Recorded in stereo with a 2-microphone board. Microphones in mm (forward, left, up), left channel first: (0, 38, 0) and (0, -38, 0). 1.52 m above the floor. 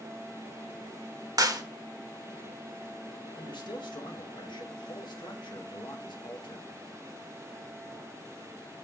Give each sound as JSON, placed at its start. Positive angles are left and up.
{"t": 1.4, "sound": "a clap", "side_deg": -50, "distance_m": 1.3}
{"t": 3.4, "sound": "a man speaking", "side_deg": 75, "distance_m": 2.0}